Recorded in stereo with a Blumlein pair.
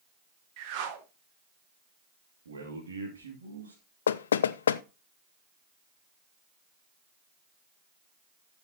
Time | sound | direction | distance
0.6 | a whoosh | 45° right | 1.6 m
2.5 | a man speaking | 70° right | 3 m
4.1 | knocking | 65° left | 0.6 m